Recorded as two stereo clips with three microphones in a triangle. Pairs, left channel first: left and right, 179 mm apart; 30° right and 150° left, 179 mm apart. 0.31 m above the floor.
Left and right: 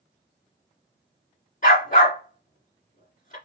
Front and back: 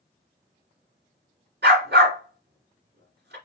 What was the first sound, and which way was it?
A dog barking, 130° left.